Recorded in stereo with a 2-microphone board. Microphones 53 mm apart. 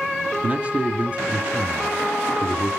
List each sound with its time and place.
0.4 s a man speaking: 25° right (ahead or behind), 1.7 m